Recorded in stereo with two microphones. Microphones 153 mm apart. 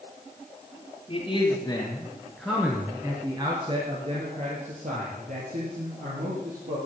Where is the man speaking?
35° left (ahead or behind), 2 m; by 6.8 s 70° right (ahead or behind), 4 m.